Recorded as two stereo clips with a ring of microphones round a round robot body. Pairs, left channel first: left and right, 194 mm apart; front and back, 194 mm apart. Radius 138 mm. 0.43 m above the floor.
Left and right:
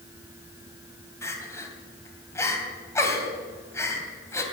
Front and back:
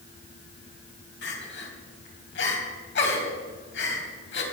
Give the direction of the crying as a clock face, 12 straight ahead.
12 o'clock.